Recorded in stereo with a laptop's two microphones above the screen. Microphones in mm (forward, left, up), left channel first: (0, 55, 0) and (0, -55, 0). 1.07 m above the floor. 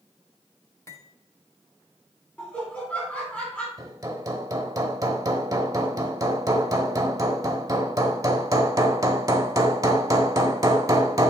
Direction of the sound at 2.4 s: 10° left (ahead or behind).